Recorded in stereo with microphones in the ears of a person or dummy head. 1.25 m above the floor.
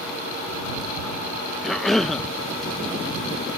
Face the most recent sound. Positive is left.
turn(degrees=5)  # may be behind; listen again after turning